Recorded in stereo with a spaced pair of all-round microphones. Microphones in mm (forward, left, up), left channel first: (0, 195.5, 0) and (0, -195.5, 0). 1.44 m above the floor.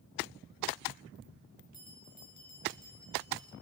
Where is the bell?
45° left (ahead or behind), 5.5 m.